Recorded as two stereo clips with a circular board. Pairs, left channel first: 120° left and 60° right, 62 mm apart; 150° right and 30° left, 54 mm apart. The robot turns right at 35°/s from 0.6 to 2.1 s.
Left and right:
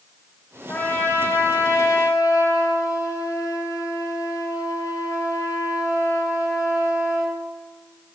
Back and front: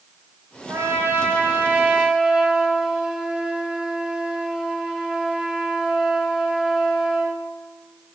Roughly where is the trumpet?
Ahead left.